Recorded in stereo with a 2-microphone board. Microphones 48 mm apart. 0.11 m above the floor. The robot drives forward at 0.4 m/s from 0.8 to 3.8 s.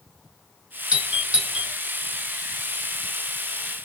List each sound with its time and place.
0.9 s a doorbell: 20° right (ahead or behind), 1.6 m; by 1.7 s 15° right (ahead or behind), 1.7 m